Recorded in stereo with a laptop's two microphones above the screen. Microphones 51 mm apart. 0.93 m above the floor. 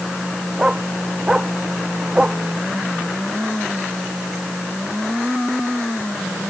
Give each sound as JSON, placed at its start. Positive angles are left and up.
{"t": 0.6, "sound": "a dog barking", "side_deg": -15}